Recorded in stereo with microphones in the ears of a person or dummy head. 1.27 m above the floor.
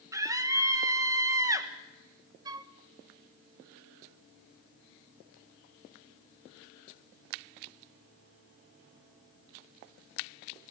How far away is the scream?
About 1.4 m.